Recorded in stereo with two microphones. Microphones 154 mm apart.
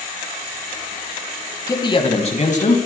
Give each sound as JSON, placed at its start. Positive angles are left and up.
{"t": 1.7, "sound": "a man speaking", "side_deg": 25, "distance_m": 1.6}